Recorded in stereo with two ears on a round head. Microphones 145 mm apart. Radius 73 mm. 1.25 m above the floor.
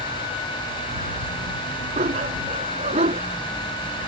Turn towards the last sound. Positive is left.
turn(degrees=-40)  # may be behind; listen again after turning